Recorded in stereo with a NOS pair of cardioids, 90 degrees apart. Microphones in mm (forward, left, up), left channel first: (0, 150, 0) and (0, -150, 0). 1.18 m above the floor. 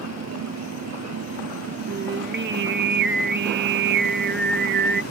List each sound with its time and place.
0.0 s a machine running: 60° right
1.9 s singing: 40° right